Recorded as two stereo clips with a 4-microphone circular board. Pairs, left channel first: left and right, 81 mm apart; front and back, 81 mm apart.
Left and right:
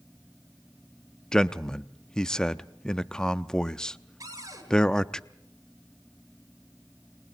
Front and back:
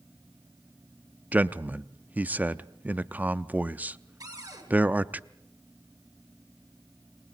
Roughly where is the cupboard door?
Behind right.